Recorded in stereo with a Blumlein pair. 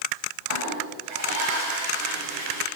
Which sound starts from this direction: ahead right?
A toilet flushing, at 0.5 s.